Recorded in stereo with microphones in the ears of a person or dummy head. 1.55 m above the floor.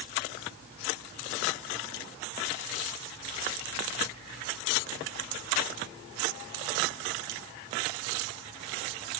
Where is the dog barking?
I don't hear a dog barking.